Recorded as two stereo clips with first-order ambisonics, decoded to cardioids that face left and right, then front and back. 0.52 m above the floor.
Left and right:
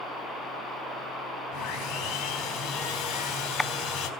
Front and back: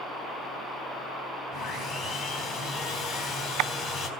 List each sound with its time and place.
1.5 s sawing: 45° left, 3.5 m